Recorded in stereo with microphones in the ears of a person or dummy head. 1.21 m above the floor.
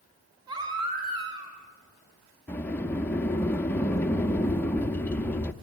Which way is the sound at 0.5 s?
25° right (ahead or behind).